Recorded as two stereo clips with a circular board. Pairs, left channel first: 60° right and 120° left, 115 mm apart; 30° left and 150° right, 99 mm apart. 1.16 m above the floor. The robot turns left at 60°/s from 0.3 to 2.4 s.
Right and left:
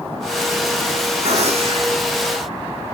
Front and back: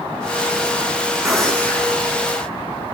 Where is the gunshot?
125° left, 2 m; by 2.0 s 80° left, 2 m.